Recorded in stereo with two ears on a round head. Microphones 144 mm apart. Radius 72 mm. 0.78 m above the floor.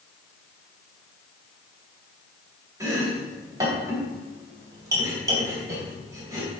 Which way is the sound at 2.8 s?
20° right (ahead or behind).